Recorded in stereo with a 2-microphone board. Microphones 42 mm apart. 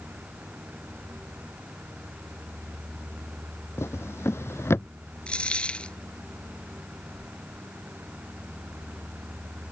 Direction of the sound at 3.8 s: 80° left.